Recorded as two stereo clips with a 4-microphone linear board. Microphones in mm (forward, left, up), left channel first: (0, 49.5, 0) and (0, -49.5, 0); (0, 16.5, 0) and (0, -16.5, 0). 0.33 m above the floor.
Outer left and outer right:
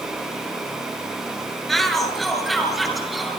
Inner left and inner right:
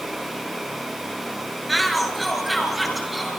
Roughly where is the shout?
Centre.